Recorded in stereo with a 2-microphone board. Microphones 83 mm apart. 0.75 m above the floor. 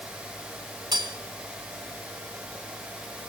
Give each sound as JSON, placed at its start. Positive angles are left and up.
{"t": 0.9, "sound": "cutlery clinking", "side_deg": -60, "distance_m": 3.0}